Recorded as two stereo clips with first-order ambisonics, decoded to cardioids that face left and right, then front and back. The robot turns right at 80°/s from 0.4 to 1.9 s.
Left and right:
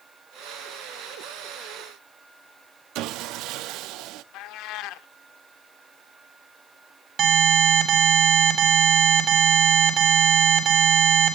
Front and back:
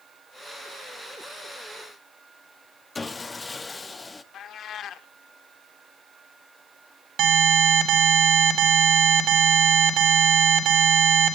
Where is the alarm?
140° right, 4 m.